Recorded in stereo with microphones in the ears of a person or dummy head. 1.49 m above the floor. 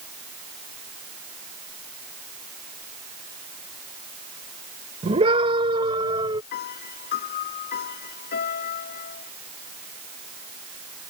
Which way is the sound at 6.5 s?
45° left (ahead or behind).